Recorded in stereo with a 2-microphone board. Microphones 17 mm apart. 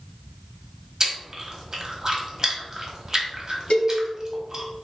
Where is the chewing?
30° right (ahead or behind), 0.9 m.